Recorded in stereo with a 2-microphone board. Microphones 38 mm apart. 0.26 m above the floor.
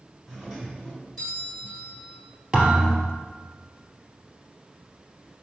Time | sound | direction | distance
0.3 | a doorbell | 10° left (ahead or behind) | 2.5 m
2.5 | a thud | 15° right (ahead or behind) | 2 m